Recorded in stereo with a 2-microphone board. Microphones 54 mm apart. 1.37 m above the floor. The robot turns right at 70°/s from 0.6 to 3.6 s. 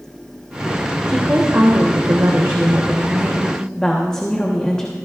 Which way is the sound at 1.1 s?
165° right.